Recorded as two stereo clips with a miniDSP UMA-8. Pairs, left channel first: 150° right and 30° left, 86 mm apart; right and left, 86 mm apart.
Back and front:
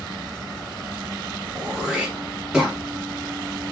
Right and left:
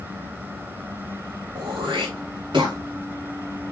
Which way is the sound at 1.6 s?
115° left.